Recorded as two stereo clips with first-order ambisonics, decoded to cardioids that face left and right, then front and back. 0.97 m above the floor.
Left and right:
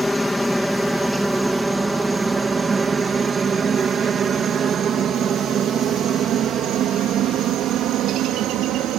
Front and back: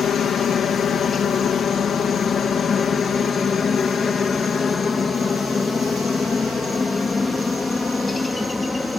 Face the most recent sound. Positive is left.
turn(degrees=-75)